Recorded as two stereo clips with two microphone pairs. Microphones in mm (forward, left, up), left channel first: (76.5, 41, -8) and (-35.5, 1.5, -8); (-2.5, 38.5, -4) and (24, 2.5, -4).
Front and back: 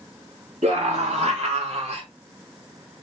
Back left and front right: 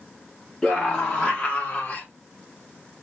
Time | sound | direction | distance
0.6 | a scream | 150° right | 2 m